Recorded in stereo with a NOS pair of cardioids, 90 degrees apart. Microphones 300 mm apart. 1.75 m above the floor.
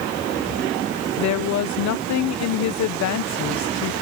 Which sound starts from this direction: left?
A woman speaking, at 1.2 s.